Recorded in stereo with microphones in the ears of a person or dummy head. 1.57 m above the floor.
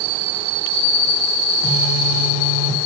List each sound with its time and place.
1.6 s a phone buzzing: 85° left, 2 m